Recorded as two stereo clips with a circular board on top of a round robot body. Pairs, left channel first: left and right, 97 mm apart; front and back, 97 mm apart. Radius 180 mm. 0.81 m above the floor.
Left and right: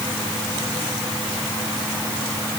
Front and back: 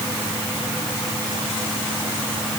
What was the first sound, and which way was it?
Only background noise.